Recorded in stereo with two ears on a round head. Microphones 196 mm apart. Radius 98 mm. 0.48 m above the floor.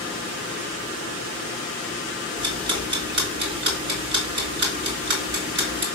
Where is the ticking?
55° right (ahead or behind), 3.5 m.